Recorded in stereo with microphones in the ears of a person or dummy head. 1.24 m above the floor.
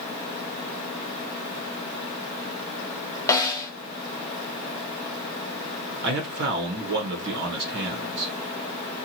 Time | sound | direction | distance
3.3 | a snare drum | 15° left (ahead or behind) | 0.6 m
6.0 | a man speaking | 60° right (ahead or behind) | 0.9 m